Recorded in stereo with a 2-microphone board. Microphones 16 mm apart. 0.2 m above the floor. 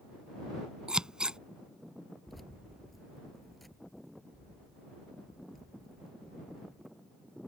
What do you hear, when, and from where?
0.9 s scissors: 55° right (ahead or behind)
2.3 s keys jangling: centre (ahead or behind)